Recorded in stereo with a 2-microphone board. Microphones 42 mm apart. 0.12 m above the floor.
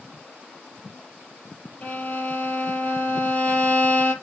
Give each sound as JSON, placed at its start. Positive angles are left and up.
{"t": 1.8, "sound": "a violin", "side_deg": 30, "distance_m": 3.5}